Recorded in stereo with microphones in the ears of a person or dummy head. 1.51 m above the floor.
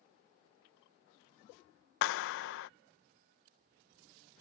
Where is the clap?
55° left (ahead or behind).